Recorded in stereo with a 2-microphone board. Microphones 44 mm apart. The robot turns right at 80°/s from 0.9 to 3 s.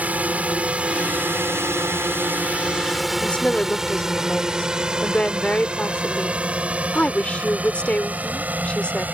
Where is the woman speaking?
25° left (ahead or behind).